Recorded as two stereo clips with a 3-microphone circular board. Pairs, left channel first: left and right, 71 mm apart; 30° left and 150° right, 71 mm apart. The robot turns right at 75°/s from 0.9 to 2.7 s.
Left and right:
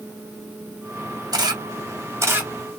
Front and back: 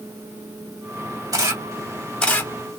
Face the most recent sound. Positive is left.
turn(degrees=-10)